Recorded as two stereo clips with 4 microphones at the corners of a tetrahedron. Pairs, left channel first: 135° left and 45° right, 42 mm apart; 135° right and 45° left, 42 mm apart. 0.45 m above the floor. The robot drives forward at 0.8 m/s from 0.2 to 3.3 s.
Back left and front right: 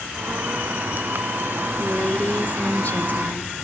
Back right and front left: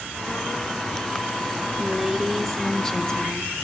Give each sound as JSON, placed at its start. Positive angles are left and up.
{"t": 1.8, "sound": "a woman speaking", "azimuth_deg": 95, "distance_m": 1.1}